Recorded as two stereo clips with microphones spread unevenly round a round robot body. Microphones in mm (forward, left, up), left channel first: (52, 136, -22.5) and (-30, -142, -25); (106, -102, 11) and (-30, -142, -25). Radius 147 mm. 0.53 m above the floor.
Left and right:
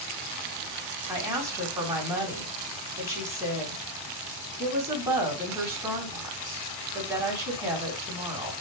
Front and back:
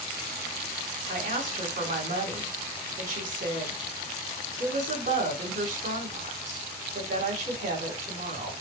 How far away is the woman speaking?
About 3.5 m.